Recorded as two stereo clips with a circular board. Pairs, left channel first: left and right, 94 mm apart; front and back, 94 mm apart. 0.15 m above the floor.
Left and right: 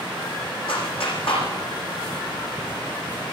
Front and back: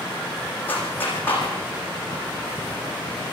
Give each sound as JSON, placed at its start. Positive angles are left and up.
{"t": 0.7, "sound": "a clap", "azimuth_deg": 70, "distance_m": 6.5}